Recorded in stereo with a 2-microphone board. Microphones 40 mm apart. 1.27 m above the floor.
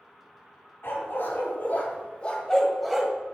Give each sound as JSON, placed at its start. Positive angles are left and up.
{"t": 0.8, "sound": "a dog barking", "side_deg": 70, "distance_m": 2.5}